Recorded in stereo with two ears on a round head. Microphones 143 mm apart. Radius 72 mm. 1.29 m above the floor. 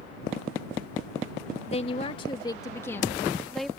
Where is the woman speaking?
40° left (ahead or behind); by 3.7 s centre (ahead or behind).